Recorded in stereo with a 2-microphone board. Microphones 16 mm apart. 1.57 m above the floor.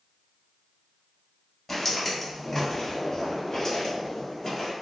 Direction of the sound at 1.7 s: 20° left (ahead or behind).